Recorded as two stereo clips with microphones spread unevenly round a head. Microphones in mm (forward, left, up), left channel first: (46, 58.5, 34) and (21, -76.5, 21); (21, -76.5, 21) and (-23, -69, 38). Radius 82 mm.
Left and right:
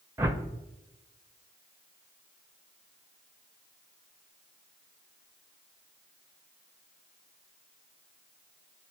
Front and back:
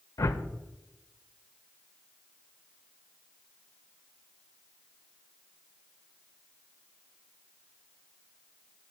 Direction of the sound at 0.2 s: 25° right.